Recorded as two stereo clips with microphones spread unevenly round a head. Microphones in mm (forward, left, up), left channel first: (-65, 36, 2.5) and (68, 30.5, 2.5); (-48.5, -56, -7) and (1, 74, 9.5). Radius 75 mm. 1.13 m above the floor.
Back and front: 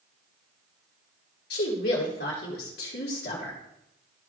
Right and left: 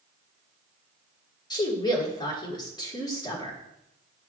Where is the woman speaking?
170° right, 3.5 m.